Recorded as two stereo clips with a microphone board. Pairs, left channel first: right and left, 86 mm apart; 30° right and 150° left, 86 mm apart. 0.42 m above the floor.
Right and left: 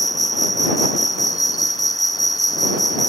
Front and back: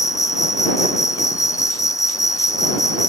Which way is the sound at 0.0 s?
65° right.